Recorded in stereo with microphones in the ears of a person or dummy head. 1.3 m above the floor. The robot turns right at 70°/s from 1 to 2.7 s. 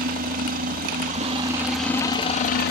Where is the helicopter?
50° right; by 2.7 s 65° left.